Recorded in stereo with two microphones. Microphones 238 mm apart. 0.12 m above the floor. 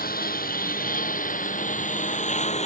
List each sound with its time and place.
0.0 s a lawn mower: 40° left (ahead or behind); by 2.7 s 30° left (ahead or behind)